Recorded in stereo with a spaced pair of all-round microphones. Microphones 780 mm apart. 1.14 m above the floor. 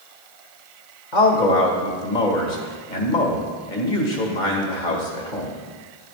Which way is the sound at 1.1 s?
70° left (ahead or behind).